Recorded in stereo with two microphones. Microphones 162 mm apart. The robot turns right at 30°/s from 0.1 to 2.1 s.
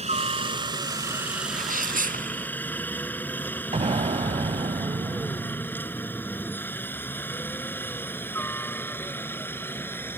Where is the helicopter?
45° right (ahead or behind); by 10.2 s 15° left (ahead or behind).